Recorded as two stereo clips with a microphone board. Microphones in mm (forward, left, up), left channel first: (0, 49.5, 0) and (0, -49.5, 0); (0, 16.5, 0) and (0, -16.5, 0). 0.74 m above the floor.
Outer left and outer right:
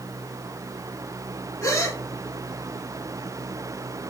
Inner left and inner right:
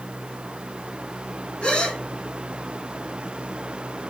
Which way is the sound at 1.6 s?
30° left (ahead or behind).